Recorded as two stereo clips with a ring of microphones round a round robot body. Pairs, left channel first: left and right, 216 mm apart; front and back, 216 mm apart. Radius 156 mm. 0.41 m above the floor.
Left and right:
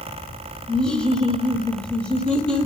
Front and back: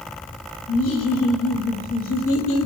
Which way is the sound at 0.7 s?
5° left.